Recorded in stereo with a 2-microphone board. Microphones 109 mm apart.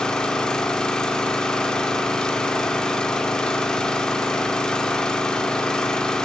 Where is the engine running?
5° left (ahead or behind), 1.8 m.